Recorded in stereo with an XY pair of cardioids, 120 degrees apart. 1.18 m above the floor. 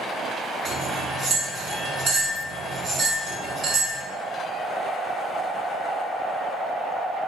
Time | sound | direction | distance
0.7 | cutlery clinking | 60° right | 1.2 m